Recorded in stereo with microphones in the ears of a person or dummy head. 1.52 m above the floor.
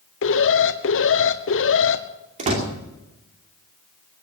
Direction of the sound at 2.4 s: 40° right (ahead or behind).